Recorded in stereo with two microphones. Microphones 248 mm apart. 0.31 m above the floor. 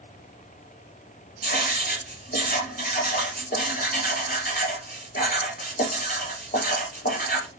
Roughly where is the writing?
Left.